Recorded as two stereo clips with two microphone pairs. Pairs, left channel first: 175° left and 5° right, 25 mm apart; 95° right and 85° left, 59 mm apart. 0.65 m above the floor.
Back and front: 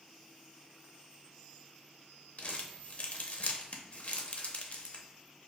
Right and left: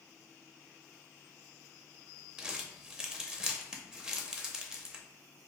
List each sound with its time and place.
2.4 s crumpling: 155° left, 0.5 m